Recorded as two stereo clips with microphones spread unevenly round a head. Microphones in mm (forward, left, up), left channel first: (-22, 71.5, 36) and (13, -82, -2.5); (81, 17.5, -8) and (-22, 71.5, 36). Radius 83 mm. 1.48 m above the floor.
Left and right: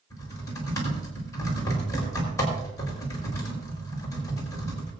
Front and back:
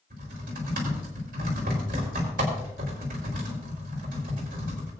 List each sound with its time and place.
0.1 s typing on a keyboard: 175° left, 4.5 m